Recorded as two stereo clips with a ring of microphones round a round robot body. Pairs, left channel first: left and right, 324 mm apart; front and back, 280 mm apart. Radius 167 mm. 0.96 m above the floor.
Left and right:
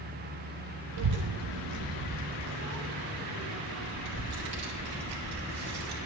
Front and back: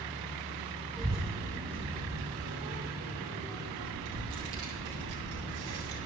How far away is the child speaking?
About 0.8 m.